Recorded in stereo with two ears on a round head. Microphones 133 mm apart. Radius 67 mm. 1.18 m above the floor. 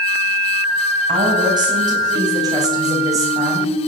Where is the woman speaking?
30° right (ahead or behind), 8.5 m; by 3.7 s 20° right (ahead or behind), 6.5 m.